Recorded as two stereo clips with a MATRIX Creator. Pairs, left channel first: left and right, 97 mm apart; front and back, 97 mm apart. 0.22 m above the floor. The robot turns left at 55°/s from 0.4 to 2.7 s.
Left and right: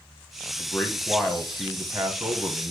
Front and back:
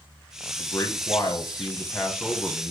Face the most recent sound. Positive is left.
turn(degrees=-75)